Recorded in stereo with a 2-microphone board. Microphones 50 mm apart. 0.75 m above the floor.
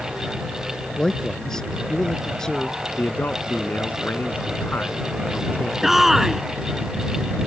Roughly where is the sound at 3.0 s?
Left.